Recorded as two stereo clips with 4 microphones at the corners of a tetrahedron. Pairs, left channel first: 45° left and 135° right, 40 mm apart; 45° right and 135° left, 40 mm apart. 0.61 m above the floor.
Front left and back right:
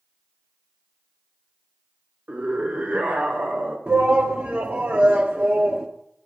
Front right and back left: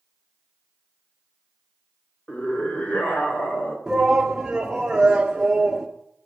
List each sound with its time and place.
2.3 s a scream: 95° right, 2.5 m; by 3.8 s 90° right, 4 m
3.9 s a shout: 145° right, 1.3 m